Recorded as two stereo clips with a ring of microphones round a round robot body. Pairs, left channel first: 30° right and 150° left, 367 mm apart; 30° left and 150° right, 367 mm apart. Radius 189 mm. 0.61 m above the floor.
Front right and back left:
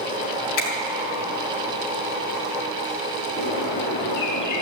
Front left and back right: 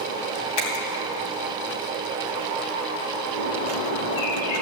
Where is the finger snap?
10° left, 3 m.